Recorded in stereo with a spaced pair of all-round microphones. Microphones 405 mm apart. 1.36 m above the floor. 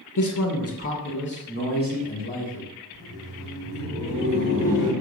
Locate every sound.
0.2 s a man speaking: 50° left (ahead or behind), 0.5 m; by 2.7 s 20° left (ahead or behind), 1.7 m
2.9 s laughter: 50° left (ahead or behind), 2.0 m